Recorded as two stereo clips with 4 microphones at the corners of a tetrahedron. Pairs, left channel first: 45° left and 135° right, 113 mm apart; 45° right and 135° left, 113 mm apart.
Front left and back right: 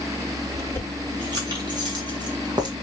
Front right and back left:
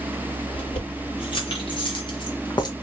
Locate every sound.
0.5 s keys jangling: 85° right, 2.5 m; by 2.7 s 90° right, 1.1 m